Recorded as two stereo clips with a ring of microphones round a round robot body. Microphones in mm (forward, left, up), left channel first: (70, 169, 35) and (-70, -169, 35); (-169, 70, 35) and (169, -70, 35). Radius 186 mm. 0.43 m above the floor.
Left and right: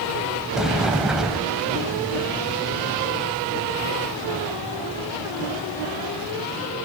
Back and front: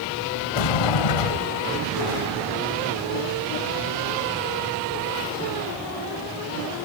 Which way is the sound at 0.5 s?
160° left.